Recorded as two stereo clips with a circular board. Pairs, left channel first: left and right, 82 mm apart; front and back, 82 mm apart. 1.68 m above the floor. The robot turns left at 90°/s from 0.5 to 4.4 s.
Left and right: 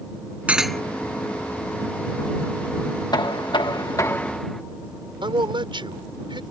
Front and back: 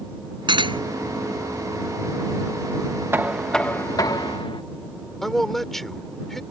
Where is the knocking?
120° left; by 4.6 s 5° left.